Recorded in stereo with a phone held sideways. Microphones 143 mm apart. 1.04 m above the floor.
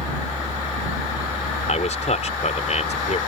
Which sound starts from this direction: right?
A fan, at 0.0 s.